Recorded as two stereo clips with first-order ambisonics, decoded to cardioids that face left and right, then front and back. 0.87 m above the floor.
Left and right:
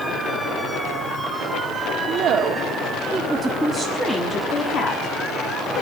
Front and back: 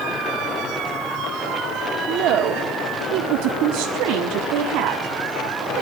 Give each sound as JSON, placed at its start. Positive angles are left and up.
{"t": 2.1, "sound": "a woman speaking", "azimuth_deg": -140, "distance_m": 1.8}